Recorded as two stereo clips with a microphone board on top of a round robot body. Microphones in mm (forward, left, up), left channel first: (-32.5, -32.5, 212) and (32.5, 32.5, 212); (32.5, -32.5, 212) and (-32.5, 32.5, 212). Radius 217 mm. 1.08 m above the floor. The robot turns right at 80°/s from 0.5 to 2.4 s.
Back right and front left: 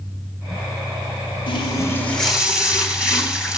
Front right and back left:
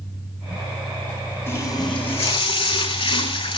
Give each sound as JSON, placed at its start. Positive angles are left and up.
{"t": 1.5, "sound": "a running tap", "azimuth_deg": -110, "distance_m": 8.5}